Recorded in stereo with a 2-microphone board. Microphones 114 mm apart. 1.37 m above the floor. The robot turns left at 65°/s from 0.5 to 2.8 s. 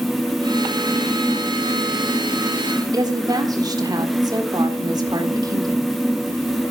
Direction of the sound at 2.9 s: 35° right (ahead or behind).